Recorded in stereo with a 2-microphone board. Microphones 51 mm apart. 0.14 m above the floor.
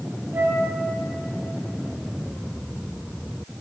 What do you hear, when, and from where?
0.3 s a flute: 60° right (ahead or behind), 3 m